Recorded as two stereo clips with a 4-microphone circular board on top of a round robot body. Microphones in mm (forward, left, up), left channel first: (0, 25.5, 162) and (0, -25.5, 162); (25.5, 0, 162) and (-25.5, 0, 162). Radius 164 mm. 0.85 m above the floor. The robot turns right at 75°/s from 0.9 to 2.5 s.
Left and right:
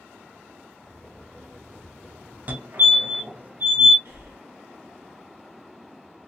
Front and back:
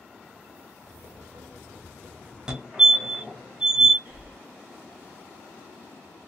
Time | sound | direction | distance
2.5 | a fire alarm | 115° right | 1.7 m
4.0 | breathing | 130° right | 1.3 m